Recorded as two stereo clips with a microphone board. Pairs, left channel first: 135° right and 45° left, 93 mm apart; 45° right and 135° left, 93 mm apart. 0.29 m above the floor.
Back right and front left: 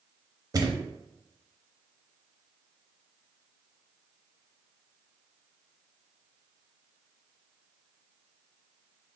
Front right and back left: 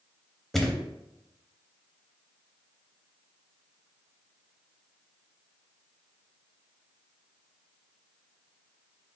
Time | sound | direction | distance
0.5 | a thud | 40° left | 0.7 m